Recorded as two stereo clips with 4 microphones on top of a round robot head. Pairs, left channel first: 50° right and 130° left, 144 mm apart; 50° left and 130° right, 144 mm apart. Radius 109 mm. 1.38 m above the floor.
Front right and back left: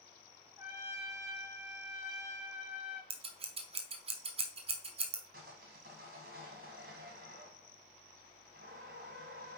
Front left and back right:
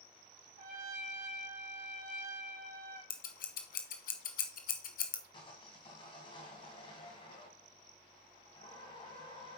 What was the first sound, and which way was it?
A trumpet, 160° right.